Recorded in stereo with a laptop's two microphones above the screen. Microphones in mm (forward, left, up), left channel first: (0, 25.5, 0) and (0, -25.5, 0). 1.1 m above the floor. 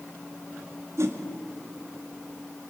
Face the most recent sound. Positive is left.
turn(degrees=-70)  # may be behind; listen again after turning